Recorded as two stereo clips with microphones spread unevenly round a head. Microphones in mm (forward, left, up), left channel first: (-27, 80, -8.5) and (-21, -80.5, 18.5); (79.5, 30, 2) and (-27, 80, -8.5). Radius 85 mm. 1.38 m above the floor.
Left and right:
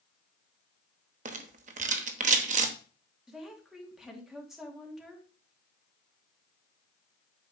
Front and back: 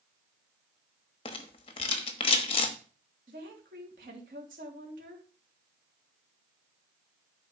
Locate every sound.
1.2 s a rattle: 60° right, 1.1 m
3.3 s a woman speaking: 175° right, 3 m